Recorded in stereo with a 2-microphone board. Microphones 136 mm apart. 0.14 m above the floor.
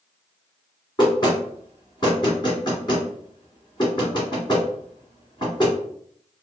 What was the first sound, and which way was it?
Knocking, 35° left (ahead or behind).